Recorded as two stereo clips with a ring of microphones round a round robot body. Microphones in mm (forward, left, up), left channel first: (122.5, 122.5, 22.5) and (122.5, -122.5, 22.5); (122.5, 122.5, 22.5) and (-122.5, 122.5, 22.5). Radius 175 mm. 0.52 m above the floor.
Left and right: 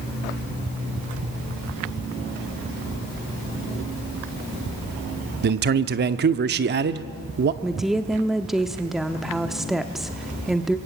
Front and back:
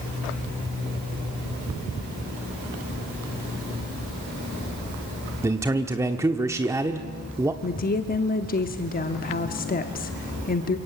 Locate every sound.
5.4 s a man speaking: 105° right, 0.8 m
7.6 s a woman speaking: straight ahead, 0.9 m